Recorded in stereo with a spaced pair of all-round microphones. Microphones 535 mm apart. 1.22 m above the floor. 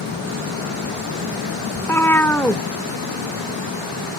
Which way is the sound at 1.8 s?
5° left (ahead or behind).